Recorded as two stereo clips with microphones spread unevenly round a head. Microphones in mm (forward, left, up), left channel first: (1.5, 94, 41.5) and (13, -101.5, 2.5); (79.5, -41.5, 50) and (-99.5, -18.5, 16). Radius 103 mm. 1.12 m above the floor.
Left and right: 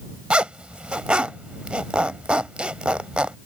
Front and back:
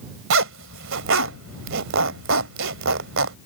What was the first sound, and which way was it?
A zipper, straight behind.